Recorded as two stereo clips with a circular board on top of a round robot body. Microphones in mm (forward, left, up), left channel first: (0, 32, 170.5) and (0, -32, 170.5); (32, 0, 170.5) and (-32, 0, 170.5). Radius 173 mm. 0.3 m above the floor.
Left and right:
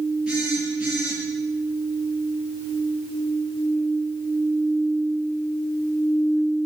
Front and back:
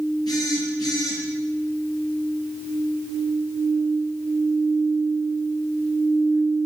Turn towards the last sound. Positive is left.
turn(degrees=-15)